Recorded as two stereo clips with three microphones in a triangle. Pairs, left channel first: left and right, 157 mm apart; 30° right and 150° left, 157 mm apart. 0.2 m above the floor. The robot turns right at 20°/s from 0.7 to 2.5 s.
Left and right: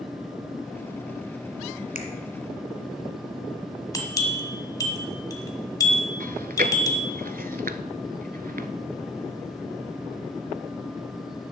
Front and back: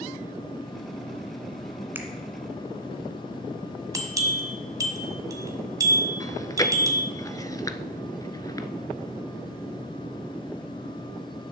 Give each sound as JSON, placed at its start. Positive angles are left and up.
{"t": 1.9, "sound": "a finger snap", "azimuth_deg": 75, "distance_m": 1.6}
{"t": 3.9, "sound": "a bell", "azimuth_deg": 120, "distance_m": 1.6}
{"t": 6.2, "sound": "chewing", "azimuth_deg": -95, "distance_m": 0.8}